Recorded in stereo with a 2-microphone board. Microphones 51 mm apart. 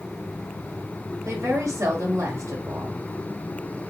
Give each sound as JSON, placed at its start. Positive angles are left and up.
{"t": 1.2, "sound": "a woman speaking", "side_deg": -70, "distance_m": 1.2}